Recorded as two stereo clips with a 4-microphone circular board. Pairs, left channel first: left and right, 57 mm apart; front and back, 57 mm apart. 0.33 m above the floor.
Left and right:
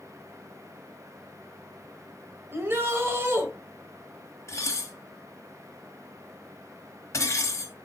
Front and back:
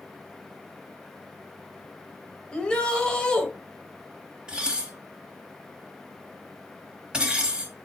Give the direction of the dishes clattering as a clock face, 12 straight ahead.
8 o'clock.